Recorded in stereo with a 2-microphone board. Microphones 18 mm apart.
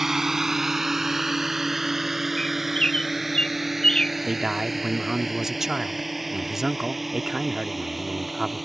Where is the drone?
20° right (ahead or behind); by 8.7 s 5° right (ahead or behind).